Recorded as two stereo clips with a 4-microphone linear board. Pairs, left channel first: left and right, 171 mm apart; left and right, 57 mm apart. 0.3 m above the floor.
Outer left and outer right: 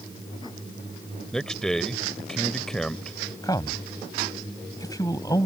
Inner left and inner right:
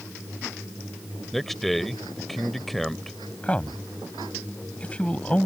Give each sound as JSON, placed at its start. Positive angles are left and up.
{"t": 1.3, "sound": "a man speaking", "side_deg": 5}
{"t": 3.4, "sound": "a man speaking", "side_deg": 20}